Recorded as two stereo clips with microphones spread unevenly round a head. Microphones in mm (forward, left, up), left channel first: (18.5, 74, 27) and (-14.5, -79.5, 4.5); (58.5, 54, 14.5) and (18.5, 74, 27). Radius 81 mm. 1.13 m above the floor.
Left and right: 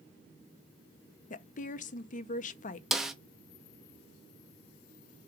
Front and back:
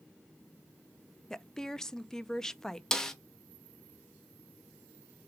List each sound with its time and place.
1.3 s a woman speaking: 40° left, 0.5 m
2.9 s a snare drum: 35° right, 0.7 m